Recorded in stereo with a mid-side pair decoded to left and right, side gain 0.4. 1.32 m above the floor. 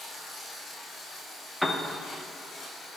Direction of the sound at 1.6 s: Straight ahead.